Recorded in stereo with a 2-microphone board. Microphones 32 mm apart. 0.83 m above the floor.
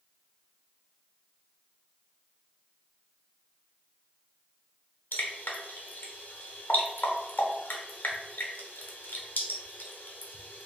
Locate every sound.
5.1 s dripping: 75° left (ahead or behind), 1.0 m